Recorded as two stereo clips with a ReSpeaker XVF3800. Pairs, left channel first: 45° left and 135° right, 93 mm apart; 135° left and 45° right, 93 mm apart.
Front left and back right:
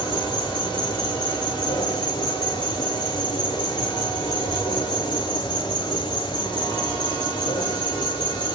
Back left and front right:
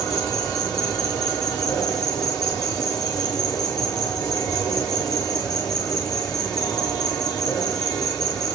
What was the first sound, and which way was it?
An insect, 85° left.